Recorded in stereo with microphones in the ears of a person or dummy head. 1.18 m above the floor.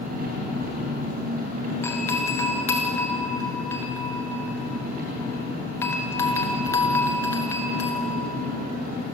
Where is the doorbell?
20° left (ahead or behind), 1.6 m.